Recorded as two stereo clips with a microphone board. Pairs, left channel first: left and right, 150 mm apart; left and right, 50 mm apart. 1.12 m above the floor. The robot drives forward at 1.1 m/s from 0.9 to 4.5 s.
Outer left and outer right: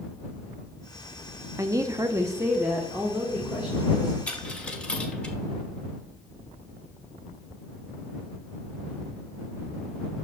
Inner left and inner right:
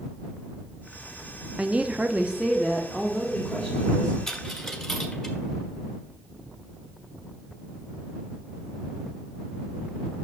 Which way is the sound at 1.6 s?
20° right (ahead or behind).